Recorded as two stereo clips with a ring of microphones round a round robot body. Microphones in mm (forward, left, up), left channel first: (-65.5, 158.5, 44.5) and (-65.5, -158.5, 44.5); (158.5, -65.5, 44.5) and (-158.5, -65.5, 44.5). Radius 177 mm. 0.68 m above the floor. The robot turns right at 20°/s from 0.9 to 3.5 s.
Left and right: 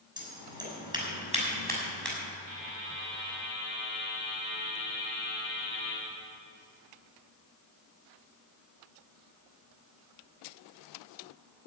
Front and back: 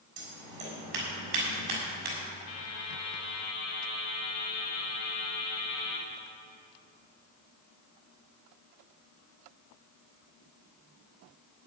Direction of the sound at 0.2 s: 165° right.